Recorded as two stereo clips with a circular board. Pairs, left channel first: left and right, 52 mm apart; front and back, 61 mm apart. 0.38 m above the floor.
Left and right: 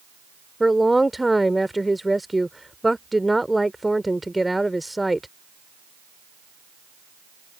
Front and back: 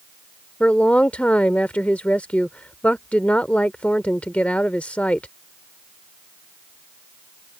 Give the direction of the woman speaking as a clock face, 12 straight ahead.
12 o'clock.